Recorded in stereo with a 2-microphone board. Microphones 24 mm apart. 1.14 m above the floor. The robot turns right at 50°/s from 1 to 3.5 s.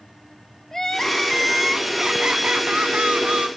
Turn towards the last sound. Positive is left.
turn(degrees=-75)